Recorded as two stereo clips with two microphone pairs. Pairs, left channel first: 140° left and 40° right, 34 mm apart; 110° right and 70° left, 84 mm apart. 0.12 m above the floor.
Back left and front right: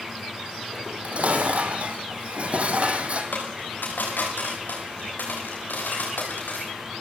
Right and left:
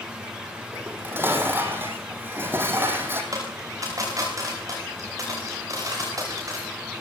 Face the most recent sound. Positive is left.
turn(degrees=120)